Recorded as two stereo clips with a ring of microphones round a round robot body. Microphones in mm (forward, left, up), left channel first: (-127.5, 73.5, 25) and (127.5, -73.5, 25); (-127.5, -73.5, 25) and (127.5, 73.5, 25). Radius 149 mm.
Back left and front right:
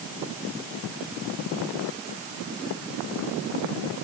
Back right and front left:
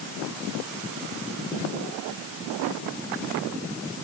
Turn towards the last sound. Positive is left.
No sound to turn to.